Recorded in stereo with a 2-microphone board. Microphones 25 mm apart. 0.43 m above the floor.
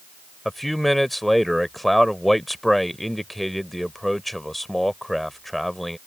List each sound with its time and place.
0.5 s a man speaking: 5° left (ahead or behind)